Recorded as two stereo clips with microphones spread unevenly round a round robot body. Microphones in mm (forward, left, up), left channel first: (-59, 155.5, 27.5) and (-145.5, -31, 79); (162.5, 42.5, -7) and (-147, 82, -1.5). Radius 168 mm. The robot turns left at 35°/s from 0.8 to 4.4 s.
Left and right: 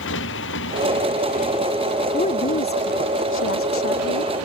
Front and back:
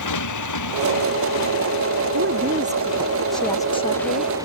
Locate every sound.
0.0 s a motorcycle: 20° left; by 4.5 s 105° right
2.1 s a woman speaking: 125° left; by 4.3 s 45° left